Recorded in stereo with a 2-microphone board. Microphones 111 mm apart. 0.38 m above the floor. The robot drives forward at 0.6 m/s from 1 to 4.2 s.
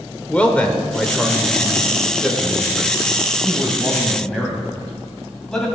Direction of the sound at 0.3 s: 10° left (ahead or behind).